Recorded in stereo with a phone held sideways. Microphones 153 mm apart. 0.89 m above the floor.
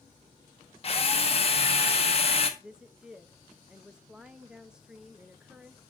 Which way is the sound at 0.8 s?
40° left (ahead or behind).